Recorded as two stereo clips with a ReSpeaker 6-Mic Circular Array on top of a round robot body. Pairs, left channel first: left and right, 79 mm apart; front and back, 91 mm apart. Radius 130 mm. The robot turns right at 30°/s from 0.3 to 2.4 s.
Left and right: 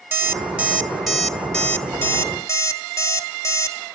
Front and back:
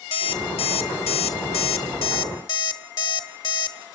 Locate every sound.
0.1 s an alarm clock: 25° right, 1.2 m; by 3.8 s 40° left, 1.2 m